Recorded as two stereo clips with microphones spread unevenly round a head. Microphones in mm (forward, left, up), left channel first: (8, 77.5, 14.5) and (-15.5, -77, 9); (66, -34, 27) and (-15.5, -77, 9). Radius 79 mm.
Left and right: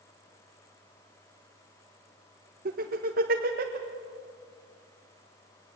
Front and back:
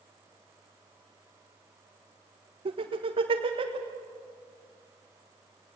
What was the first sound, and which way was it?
Laughter, 135° right.